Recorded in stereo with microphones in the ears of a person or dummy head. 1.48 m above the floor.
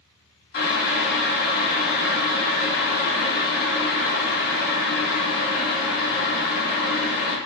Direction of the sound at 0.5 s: 55° left (ahead or behind).